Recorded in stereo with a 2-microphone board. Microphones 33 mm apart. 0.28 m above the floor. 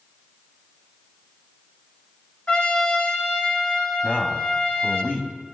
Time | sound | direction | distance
2.5 | a trumpet | 40° left (ahead or behind) | 2.0 m
4.0 | a man speaking | 50° left (ahead or behind) | 2 m